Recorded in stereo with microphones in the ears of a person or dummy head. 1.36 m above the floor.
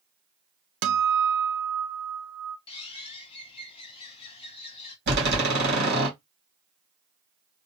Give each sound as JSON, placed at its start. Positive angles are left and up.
{"t": 0.8, "sound": "a guitar", "side_deg": -65, "distance_m": 0.5}
{"t": 2.7, "sound": "a bird", "side_deg": 30, "distance_m": 0.8}
{"t": 5.1, "sound": "a door slam", "side_deg": -65, "distance_m": 2.5}